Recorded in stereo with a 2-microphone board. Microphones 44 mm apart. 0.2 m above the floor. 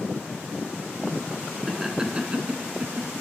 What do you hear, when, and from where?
1.7 s laughter: 10° right (ahead or behind), 2 m; by 3.2 s 55° right (ahead or behind), 1.8 m